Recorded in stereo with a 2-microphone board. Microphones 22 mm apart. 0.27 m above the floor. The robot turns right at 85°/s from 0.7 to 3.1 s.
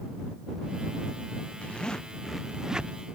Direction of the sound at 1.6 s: 120° left.